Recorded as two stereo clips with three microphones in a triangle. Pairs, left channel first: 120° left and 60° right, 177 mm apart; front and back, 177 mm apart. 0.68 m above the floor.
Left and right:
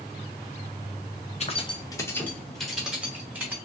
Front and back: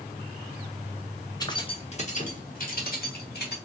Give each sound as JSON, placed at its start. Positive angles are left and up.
{"t": 1.4, "sound": "keys jangling", "azimuth_deg": 65, "distance_m": 0.7}